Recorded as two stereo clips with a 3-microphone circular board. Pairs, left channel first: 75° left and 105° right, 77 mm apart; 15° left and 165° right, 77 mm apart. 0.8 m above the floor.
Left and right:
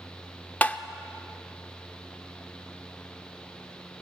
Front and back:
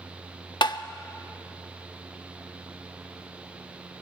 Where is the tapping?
10° left, 0.7 m.